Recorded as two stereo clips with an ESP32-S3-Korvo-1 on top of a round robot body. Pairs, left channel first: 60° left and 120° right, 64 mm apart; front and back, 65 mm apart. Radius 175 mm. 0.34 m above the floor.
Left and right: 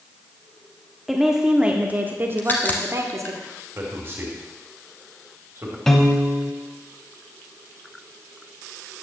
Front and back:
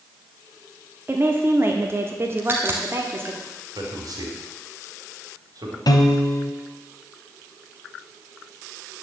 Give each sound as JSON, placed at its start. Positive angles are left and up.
{"t": 1.1, "sound": "a woman speaking", "azimuth_deg": 150, "distance_m": 1.2}
{"t": 2.4, "sound": "a crack", "azimuth_deg": 120, "distance_m": 0.9}
{"t": 3.8, "sound": "a man speaking", "azimuth_deg": -170, "distance_m": 2.5}
{"t": 5.9, "sound": "a piano", "azimuth_deg": -25, "distance_m": 0.9}